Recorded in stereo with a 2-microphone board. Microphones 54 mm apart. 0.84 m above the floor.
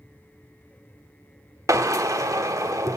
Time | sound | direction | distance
1.7 | a drill | 75° right (ahead or behind) | 1.2 m